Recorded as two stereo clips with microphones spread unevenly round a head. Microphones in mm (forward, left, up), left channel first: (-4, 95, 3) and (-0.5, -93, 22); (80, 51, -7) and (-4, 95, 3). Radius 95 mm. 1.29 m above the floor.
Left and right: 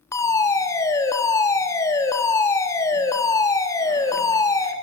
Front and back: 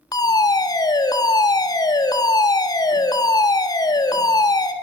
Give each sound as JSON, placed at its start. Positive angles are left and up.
{"t": 0.1, "sound": "a fire alarm", "azimuth_deg": 20, "distance_m": 4.5}